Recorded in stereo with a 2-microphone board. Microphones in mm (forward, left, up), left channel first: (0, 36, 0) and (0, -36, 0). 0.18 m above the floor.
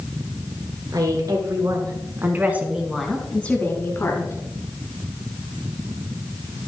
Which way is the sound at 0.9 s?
60° right (ahead or behind).